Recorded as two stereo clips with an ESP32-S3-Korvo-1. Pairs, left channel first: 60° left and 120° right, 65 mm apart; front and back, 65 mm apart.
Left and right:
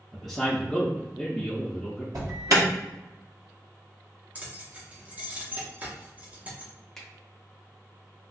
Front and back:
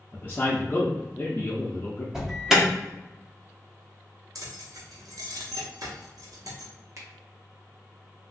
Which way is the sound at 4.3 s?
175° left.